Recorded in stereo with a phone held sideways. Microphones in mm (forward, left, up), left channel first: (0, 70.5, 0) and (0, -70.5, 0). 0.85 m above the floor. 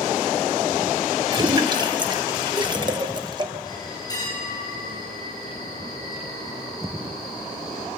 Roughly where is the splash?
Right.